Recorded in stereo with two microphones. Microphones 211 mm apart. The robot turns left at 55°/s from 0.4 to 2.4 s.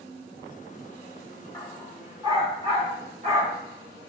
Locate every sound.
1.5 s a dog barking: 20° left (ahead or behind), 3.5 m; by 4.1 s 30° right (ahead or behind), 3.5 m